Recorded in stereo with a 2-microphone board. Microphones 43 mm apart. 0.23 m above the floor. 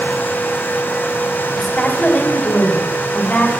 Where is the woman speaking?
15° left (ahead or behind), 1.6 m; by 3.5 s 25° left (ahead or behind), 2 m.